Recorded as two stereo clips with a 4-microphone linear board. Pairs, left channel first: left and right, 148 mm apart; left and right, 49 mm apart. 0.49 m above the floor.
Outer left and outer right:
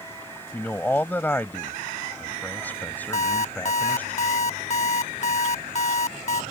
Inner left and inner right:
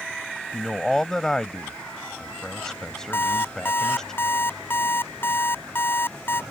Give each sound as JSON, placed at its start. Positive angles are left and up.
{"t": 0.5, "sound": "a man speaking", "side_deg": 10}
{"t": 3.1, "sound": "an alarm clock", "side_deg": 50}